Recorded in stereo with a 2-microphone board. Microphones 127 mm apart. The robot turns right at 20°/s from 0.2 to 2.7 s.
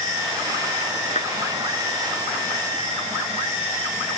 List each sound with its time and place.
1.1 s a clap: 65° left (ahead or behind); by 1.3 s 70° left (ahead or behind)